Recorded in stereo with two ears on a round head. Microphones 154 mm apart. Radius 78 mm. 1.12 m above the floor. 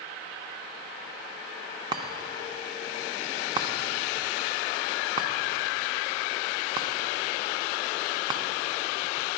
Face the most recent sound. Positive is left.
turn(degrees=-25)  # may be behind; listen again after turning